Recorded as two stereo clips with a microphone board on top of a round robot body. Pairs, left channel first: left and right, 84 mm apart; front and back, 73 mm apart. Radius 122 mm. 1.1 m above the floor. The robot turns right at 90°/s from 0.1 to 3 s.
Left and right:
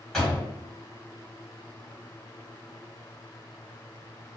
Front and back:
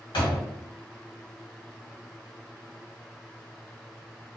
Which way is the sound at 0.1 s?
5° left.